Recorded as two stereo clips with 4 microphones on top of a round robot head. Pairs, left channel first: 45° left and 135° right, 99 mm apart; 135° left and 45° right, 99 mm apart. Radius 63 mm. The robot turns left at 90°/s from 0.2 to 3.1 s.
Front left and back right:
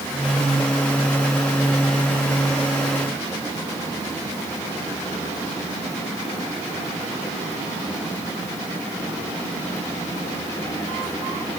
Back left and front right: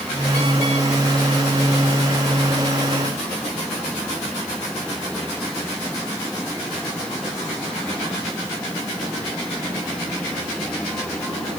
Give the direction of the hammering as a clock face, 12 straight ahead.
No hammering in this recording.